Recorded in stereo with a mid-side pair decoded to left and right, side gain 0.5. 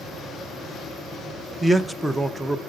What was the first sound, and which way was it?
A man speaking, 15° right.